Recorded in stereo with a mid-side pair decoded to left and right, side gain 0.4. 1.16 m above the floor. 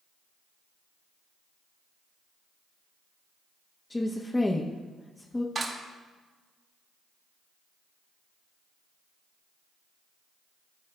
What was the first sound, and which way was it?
A woman speaking, 20° left.